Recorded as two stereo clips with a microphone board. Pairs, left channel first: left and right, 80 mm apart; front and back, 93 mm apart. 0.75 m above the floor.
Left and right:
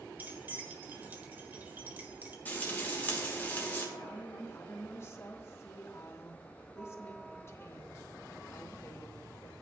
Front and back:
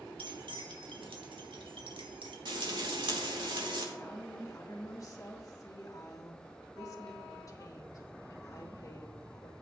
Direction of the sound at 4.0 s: 40° left.